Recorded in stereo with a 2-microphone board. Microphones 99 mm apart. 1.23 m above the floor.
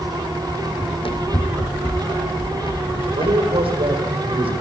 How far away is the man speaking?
About 4.5 m.